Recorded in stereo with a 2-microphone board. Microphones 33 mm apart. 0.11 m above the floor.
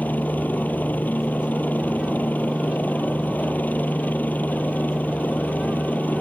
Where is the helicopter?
60° left (ahead or behind).